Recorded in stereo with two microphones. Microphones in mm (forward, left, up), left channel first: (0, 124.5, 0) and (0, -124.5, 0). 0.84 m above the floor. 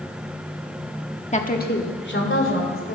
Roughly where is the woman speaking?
Left.